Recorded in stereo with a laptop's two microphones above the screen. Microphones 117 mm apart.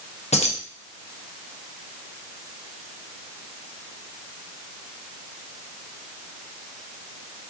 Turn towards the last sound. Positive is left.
turn(degrees=65)  # may be behind; listen again after turning